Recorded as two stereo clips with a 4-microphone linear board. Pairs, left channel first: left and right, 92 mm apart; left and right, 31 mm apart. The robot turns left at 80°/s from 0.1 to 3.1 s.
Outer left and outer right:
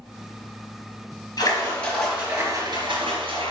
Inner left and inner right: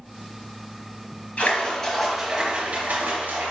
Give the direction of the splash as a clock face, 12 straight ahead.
10 o'clock.